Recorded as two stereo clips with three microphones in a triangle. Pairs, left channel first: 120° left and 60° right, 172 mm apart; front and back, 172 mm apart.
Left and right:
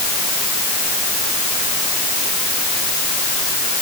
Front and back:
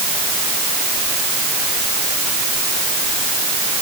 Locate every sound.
Only background noise.